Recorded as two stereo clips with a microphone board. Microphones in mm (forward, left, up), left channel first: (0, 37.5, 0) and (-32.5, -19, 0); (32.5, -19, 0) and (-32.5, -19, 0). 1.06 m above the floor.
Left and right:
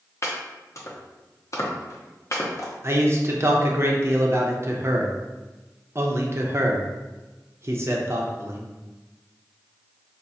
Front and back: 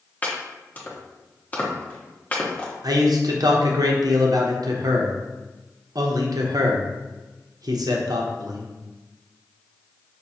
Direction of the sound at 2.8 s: 170° right.